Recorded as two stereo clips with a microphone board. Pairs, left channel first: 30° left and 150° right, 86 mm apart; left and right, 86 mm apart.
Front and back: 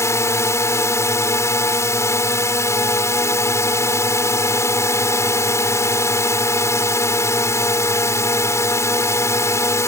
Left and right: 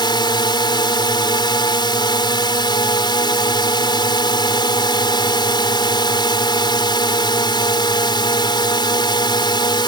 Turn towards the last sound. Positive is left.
turn(degrees=80)